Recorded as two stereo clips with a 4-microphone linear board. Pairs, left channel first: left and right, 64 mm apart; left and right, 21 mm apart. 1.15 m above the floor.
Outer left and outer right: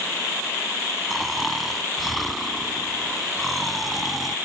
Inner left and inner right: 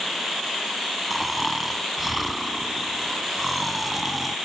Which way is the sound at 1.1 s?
Centre (ahead or behind).